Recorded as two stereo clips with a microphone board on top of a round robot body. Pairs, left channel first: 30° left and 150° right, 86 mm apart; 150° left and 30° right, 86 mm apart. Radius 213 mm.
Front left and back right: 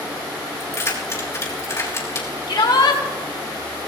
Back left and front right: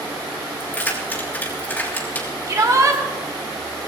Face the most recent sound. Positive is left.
turn(degrees=15)